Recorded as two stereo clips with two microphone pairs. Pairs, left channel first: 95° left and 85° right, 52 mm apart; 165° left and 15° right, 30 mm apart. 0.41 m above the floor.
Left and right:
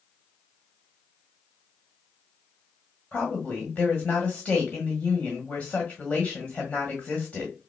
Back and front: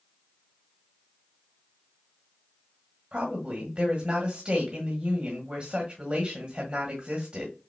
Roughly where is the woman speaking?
Ahead left.